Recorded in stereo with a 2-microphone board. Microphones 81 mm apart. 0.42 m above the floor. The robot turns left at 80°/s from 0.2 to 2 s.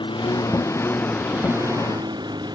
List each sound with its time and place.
0.0 s a lawn mower: 80° left; by 2.5 s 65° right (ahead or behind)